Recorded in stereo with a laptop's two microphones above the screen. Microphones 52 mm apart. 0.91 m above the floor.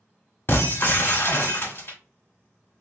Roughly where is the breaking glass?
Left.